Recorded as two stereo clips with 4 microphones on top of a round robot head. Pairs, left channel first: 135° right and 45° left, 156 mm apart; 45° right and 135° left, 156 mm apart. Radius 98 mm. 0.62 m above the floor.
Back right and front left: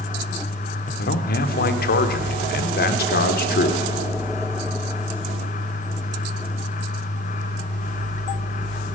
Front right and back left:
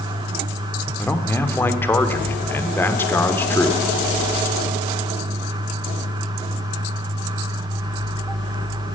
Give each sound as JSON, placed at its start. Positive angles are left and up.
{"t": 1.0, "sound": "a man speaking", "azimuth_deg": -120, "distance_m": 1.4}